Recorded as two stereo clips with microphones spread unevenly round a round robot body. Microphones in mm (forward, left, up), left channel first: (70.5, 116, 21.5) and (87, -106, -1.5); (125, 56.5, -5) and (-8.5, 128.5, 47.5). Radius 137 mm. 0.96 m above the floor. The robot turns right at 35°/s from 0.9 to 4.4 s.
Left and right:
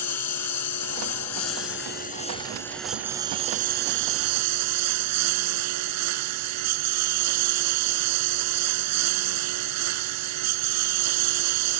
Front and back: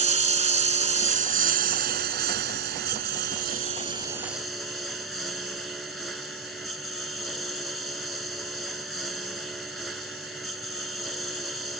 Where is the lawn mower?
115° left; by 11.8 s 125° right.